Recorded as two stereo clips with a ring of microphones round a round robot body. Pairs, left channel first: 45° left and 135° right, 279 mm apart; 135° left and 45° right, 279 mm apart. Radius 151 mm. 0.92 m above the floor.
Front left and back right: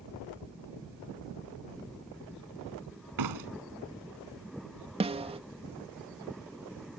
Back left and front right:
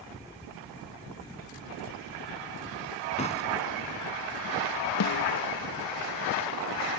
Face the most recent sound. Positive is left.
turn(degrees=155)